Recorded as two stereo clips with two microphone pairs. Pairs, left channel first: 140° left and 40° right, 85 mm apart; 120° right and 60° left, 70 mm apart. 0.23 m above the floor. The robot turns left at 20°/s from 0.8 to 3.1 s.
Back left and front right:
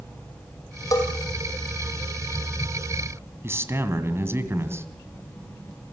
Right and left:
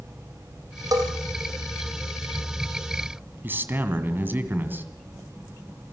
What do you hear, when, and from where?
0.9 s a bell: 90° left, 3.5 m
3.4 s a man speaking: 10° left, 2 m